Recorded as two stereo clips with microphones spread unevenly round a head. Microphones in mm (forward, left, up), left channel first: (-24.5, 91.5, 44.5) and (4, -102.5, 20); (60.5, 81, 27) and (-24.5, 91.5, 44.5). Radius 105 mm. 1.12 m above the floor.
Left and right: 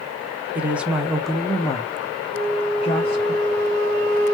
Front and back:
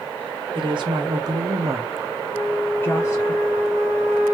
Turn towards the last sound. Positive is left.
turn(degrees=-75)